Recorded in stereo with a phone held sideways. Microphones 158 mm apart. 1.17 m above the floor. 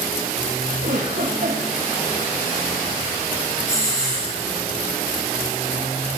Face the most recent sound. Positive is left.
turn(degrees=60)  # may be behind; listen again after turning